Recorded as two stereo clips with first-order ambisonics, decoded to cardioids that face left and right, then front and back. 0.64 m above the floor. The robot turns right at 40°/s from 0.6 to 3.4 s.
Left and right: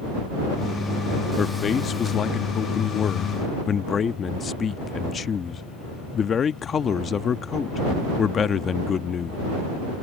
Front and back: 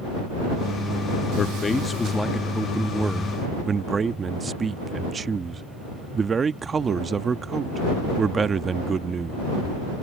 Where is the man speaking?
45° left; by 9.4 s 125° left.